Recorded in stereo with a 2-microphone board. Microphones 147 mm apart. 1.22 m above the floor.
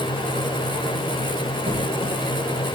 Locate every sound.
1.7 s a squeak: 40° right (ahead or behind), 4 m